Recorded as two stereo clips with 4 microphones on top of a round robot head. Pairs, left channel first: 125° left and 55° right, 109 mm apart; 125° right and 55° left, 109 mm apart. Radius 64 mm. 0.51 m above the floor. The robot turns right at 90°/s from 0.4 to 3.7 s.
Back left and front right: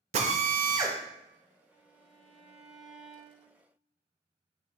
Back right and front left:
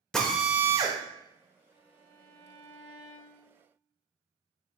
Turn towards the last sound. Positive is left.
turn(degrees=-165)